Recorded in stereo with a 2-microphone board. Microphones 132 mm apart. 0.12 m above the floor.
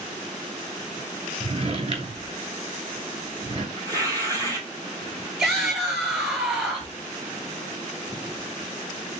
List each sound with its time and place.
1.4 s a drawer: 45° right (ahead or behind), 0.9 m
3.8 s tearing paper: 25° right (ahead or behind), 1.8 m
5.4 s a shout: centre (ahead or behind), 2.5 m